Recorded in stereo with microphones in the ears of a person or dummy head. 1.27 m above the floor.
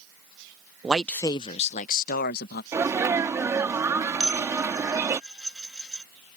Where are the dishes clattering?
5° right (ahead or behind).